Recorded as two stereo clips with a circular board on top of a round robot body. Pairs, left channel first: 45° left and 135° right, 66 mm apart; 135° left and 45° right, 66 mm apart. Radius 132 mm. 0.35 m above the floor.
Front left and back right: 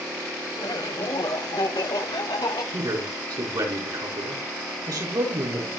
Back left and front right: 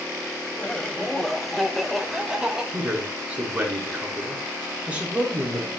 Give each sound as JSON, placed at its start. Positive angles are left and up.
{"t": 0.6, "sound": "laughter", "azimuth_deg": 65, "distance_m": 2.0}
{"t": 2.7, "sound": "a man speaking", "azimuth_deg": -115, "distance_m": 5.0}